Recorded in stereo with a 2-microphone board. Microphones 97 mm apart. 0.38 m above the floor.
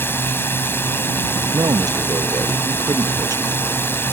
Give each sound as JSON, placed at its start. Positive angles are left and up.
{"t": 0.0, "sound": "a drone", "side_deg": 20}
{"t": 1.5, "sound": "a man speaking", "side_deg": -40}